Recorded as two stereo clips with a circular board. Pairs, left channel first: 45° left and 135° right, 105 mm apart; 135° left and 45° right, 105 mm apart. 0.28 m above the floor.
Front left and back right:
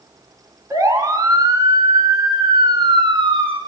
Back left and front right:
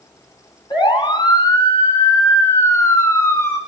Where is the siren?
170° left, 4 m; by 3.6 s 160° right, 4.5 m.